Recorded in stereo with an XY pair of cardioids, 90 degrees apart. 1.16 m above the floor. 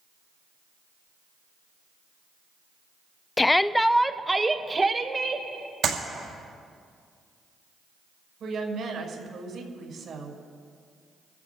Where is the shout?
25° left, 0.6 m; by 5.5 s 35° right, 1.7 m.